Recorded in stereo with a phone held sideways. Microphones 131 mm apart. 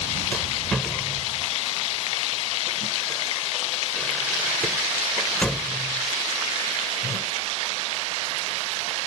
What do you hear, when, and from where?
0.3 s a rattle: 5° left (ahead or behind)